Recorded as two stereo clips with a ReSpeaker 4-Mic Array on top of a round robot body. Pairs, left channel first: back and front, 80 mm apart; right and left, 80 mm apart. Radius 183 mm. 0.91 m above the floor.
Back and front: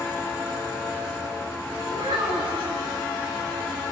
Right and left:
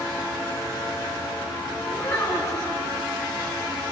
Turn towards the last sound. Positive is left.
turn(degrees=-35)